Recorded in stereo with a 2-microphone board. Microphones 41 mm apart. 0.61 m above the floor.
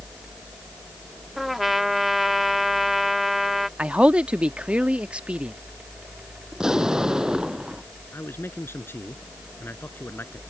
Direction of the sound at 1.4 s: 5° right (ahead or behind).